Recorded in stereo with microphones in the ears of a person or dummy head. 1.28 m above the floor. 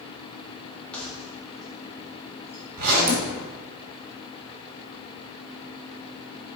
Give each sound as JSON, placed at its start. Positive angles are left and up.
{"t": 0.9, "sound": "keys jangling", "side_deg": 5, "distance_m": 1.8}
{"t": 2.8, "sound": "a zipper", "side_deg": -50, "distance_m": 2.0}